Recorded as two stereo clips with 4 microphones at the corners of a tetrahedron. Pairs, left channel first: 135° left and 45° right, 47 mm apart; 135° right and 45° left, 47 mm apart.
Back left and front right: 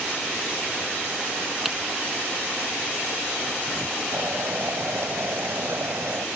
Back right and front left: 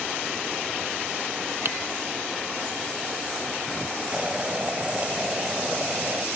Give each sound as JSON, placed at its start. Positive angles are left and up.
{"t": 1.6, "sound": "typing on a keyboard", "azimuth_deg": 40}
{"t": 4.1, "sound": "boiling", "azimuth_deg": -20}